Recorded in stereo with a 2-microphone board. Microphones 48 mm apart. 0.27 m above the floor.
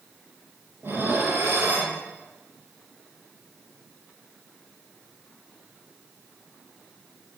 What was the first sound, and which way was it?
Dishes clattering, 60° right (ahead or behind).